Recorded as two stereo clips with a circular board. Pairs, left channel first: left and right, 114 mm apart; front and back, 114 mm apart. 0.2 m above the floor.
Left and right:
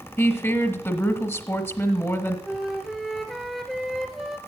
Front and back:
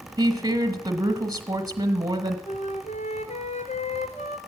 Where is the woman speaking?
145° left, 1.2 m.